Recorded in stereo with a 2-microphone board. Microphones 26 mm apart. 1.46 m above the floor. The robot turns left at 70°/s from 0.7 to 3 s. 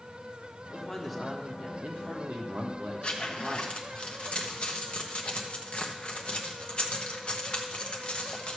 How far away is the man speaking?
About 1.4 m.